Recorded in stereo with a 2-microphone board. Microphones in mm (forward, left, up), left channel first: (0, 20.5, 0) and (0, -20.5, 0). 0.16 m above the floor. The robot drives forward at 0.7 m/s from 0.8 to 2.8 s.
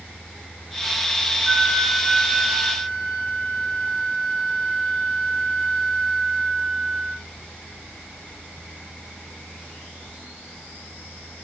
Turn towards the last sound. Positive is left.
turn(degrees=-15)  # may be behind; listen again after turning